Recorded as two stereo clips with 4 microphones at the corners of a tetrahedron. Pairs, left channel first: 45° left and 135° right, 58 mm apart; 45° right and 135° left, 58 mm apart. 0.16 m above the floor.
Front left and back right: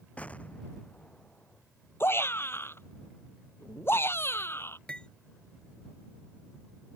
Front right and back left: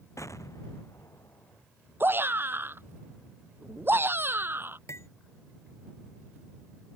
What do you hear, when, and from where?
0.2 s an explosion: 20° right
2.0 s a shout: 90° left
4.9 s cutlery clinking: 25° right